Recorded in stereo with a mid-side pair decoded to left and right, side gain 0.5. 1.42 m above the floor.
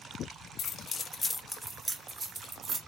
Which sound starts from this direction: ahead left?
Keys jangling, at 0.6 s.